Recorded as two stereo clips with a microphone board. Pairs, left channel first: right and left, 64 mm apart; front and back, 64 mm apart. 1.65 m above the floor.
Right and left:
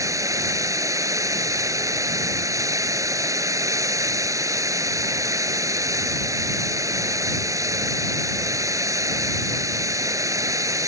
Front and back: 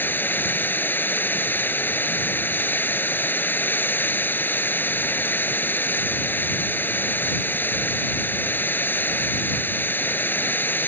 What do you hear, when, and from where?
0.0 s running water: 60° left